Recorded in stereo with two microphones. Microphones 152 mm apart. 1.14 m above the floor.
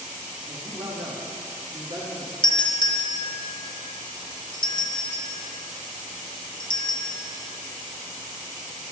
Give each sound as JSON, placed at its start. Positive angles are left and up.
{"t": 0.5, "sound": "a man speaking", "side_deg": -40, "distance_m": 2.5}
{"t": 2.4, "sound": "a doorbell", "side_deg": 35, "distance_m": 0.5}